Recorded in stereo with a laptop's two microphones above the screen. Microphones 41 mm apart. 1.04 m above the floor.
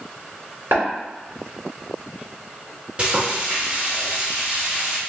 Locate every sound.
0.7 s tapping: 80° right, 2.0 m
3.0 s frying: 30° right (ahead or behind), 1.0 m